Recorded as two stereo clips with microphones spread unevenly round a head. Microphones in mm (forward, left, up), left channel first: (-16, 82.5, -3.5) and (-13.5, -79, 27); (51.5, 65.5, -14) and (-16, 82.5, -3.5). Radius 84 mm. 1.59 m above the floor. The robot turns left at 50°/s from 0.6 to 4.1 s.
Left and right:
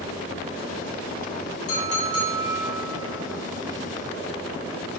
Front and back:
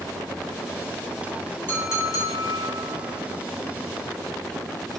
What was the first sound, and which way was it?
A clink, 50° left.